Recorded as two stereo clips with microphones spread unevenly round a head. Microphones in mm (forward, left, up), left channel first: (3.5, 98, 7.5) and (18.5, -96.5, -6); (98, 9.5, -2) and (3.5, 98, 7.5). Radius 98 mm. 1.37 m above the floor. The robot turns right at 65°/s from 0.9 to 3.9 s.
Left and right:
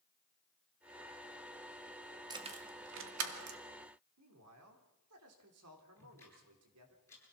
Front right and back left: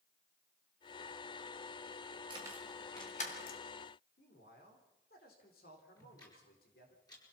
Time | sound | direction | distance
2.3 | keys jangling | 160° right | 1.5 m
4.2 | a man speaking | 80° right | 3.5 m
6.0 | ticking | 20° left | 8.5 m